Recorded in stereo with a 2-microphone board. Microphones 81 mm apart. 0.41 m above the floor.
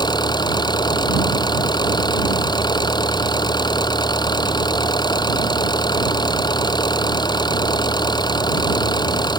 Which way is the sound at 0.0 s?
60° left (ahead or behind).